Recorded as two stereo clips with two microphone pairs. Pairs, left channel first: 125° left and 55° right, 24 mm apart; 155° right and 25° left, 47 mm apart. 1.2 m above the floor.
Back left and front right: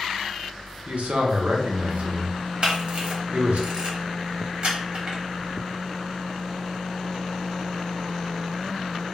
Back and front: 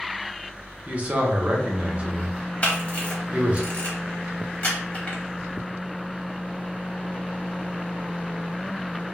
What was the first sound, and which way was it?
A man speaking, 35° right.